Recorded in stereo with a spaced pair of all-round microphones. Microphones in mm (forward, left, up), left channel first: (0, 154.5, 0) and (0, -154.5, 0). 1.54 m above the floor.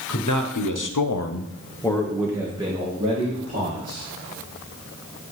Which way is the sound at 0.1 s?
65° left (ahead or behind).